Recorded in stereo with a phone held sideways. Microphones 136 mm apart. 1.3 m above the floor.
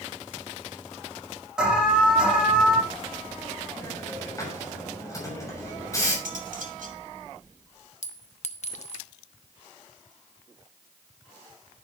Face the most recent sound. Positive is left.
turn(degrees=60)  # may be behind; listen again after turning